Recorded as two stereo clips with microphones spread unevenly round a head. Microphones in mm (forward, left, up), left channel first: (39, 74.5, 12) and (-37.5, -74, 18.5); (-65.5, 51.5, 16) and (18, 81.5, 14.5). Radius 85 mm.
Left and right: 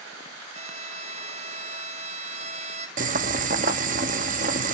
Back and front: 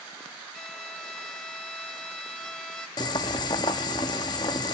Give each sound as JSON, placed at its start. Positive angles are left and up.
{"t": 0.5, "sound": "a violin", "azimuth_deg": -80, "distance_m": 1.1}
{"t": 3.0, "sound": "boiling", "azimuth_deg": -135, "distance_m": 1.0}